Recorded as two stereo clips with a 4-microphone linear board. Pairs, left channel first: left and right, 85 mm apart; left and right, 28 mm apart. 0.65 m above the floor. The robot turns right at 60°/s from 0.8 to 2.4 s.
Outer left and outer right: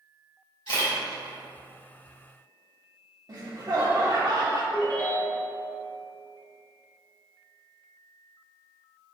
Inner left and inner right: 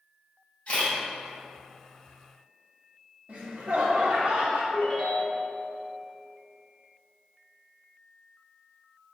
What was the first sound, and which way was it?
A camera shutter, 75° left (ahead or behind).